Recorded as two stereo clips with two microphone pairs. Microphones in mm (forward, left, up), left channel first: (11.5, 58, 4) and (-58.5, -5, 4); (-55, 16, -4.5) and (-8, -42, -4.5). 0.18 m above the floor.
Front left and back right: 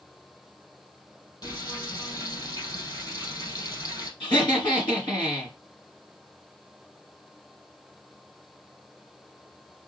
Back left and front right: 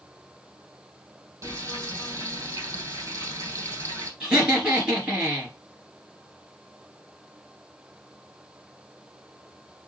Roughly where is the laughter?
Ahead left.